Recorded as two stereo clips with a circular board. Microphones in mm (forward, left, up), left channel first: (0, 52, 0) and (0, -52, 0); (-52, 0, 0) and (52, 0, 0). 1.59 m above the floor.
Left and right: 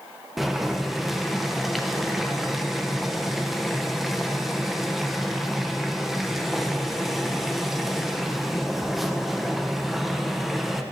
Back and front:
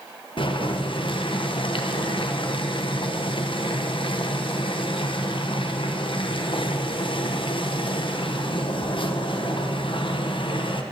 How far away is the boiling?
About 0.8 m.